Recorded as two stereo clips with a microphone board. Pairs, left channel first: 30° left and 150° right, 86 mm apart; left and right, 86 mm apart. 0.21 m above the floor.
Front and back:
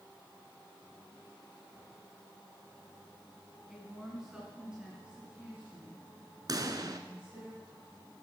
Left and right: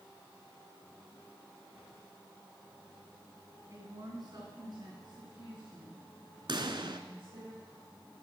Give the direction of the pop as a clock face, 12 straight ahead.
4 o'clock.